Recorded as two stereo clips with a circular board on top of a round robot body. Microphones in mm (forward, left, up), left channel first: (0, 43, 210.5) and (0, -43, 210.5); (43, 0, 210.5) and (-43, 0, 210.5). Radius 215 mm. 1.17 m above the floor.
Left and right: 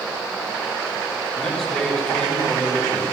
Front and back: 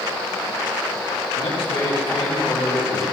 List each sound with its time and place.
1.4 s a man speaking: 10° left, 3.5 m